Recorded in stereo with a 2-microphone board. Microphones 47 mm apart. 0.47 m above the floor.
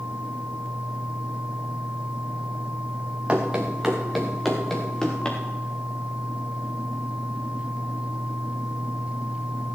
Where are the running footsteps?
20° right (ahead or behind), 2.5 m; by 5.4 s 20° left (ahead or behind), 3.5 m.